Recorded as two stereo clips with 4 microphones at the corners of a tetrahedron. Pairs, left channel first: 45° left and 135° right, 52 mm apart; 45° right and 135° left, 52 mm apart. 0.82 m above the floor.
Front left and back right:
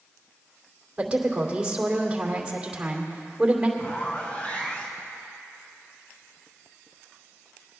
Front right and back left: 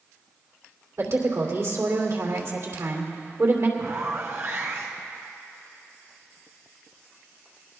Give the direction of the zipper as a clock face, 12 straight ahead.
9 o'clock.